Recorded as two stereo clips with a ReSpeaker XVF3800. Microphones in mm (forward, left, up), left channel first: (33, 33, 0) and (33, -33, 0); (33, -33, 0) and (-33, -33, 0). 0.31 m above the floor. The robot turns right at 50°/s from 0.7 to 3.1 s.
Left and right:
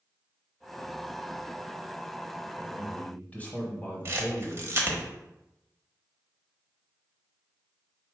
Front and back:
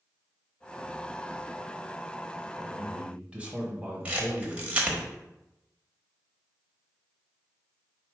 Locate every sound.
2.6 s a man speaking: 105° left, 1.0 m; by 5.0 s 130° left, 1.0 m
4.0 s a camera shutter: 120° right, 1.0 m